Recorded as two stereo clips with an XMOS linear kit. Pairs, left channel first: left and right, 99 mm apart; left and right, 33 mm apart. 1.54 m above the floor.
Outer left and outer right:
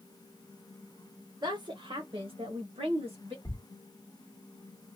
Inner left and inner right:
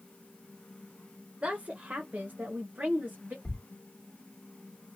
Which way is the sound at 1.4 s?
45° right (ahead or behind).